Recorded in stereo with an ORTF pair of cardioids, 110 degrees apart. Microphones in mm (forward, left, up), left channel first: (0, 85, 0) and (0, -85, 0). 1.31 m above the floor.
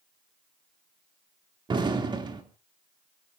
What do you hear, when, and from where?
1.7 s an explosion: 25° right, 2.5 m